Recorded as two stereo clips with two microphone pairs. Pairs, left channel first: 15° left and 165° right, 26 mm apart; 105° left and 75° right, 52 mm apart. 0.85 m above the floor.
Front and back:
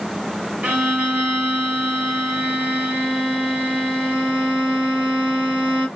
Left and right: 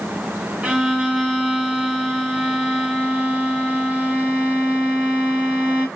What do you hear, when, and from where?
0.6 s a violin: 140° right, 1.7 m